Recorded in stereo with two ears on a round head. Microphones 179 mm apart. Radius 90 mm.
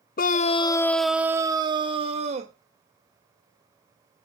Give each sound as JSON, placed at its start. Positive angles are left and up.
{"t": 0.2, "sound": "a scream", "side_deg": 50, "distance_m": 0.5}